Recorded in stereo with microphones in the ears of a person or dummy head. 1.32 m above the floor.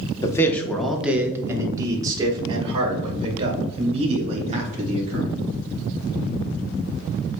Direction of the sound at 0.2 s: 25° left (ahead or behind).